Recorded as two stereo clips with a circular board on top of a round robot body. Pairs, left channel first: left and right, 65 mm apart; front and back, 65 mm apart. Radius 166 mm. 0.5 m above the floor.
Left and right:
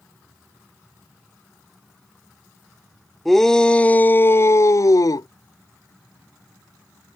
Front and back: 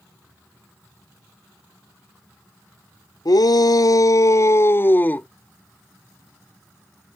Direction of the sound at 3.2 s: 5° left.